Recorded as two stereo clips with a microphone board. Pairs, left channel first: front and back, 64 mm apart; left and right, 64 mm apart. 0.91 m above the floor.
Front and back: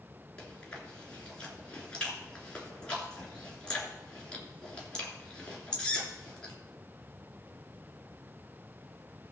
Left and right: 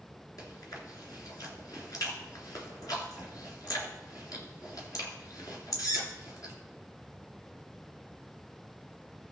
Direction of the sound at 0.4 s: 75° left.